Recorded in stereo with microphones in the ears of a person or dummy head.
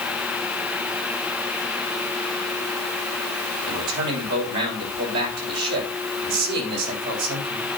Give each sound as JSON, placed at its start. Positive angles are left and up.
{"t": 3.7, "sound": "a man speaking", "side_deg": -60, "distance_m": 6.5}